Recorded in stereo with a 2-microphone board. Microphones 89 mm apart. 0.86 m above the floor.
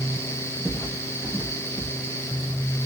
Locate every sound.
0.7 s footsteps: 10° right (ahead or behind), 3.5 m; by 1.9 s 20° right (ahead or behind), 4 m